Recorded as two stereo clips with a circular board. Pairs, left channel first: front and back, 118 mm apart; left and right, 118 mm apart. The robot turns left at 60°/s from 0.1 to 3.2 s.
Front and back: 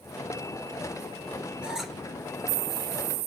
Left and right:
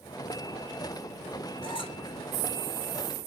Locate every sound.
1.6 s a squeak: 105° left, 0.8 m; by 2.0 s 80° left, 0.8 m